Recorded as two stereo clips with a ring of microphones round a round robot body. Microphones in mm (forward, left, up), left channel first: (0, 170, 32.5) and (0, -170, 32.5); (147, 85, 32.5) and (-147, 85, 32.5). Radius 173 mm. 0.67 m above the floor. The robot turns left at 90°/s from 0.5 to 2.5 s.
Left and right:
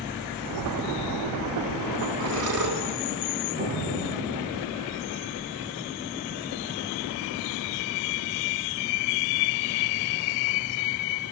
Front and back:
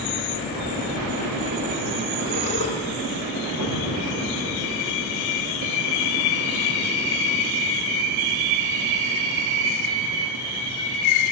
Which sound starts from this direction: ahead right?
Breathing, at 2.2 s.